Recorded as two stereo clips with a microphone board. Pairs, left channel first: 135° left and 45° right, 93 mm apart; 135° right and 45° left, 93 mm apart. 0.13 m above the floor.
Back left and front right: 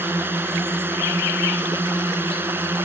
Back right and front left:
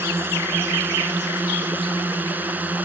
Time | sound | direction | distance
0.0 | a drone | straight ahead | ?